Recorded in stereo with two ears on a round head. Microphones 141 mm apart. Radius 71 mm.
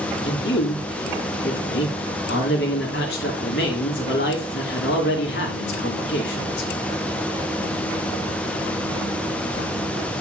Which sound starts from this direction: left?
A man speaking, at 0.2 s.